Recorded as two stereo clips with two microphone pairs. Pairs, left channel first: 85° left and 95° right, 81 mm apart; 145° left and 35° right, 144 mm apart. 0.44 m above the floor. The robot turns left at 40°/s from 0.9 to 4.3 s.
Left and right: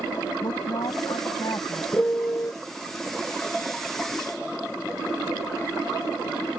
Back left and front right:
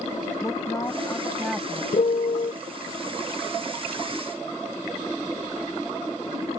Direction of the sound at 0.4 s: 80° left.